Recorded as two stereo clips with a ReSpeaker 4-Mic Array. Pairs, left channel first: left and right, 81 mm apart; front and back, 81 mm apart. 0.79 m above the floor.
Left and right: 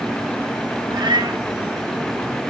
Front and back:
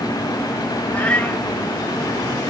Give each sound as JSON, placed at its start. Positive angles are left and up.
{"t": 0.9, "sound": "a cat meowing", "azimuth_deg": -70, "distance_m": 1.6}